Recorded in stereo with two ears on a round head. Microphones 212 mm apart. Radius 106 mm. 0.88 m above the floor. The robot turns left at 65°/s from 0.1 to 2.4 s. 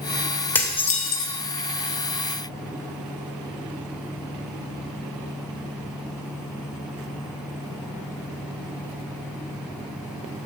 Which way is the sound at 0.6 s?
175° left.